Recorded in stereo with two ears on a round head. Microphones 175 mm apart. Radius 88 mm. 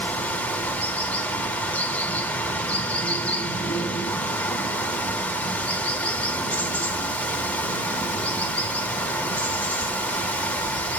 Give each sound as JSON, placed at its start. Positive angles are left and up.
{"t": 0.0, "sound": "running water", "side_deg": 5, "distance_m": 3.0}